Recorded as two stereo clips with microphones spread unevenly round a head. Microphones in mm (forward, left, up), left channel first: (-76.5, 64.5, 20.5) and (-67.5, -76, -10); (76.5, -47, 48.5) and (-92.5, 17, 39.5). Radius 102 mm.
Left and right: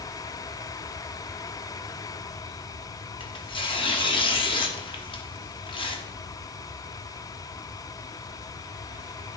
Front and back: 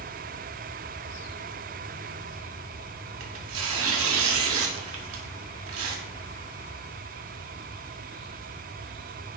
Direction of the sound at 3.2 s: 145° left.